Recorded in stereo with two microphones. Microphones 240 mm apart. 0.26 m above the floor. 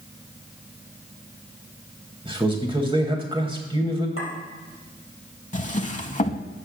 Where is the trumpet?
No trumpet in this recording.